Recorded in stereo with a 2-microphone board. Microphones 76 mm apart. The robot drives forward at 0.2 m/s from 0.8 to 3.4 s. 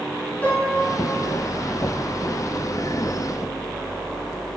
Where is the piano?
20° left (ahead or behind), 2 m.